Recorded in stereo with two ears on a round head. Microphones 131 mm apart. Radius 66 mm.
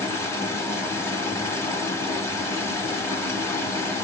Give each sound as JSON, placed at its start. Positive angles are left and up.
{"t": 0.0, "sound": "running water", "side_deg": 20, "distance_m": 1.1}